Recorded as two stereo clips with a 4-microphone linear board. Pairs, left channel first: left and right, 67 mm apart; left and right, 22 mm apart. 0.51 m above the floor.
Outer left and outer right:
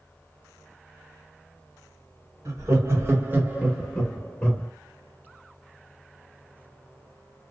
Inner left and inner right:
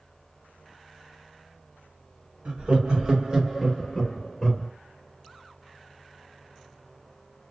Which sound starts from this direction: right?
Laughter, at 2.5 s.